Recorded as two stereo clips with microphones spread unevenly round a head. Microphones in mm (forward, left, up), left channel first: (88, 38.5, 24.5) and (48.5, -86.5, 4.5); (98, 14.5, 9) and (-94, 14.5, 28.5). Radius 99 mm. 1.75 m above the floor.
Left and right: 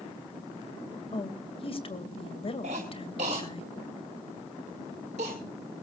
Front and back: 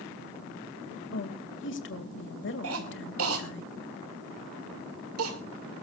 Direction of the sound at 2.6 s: 170° right.